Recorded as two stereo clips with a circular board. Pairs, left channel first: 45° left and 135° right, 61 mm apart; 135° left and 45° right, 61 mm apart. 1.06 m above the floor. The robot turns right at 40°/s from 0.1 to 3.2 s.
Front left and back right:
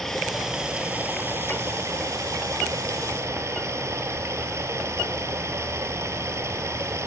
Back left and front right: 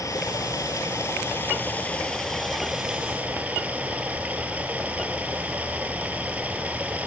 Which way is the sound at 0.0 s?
130° left.